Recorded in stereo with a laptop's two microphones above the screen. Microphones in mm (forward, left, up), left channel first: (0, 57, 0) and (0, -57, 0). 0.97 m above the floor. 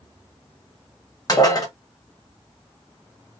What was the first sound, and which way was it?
Dishes clattering, 35° left (ahead or behind).